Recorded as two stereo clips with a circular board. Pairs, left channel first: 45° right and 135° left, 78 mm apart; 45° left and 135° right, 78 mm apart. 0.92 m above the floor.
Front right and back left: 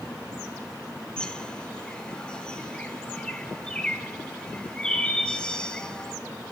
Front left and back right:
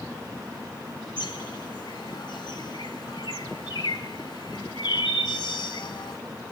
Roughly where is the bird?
Ahead left.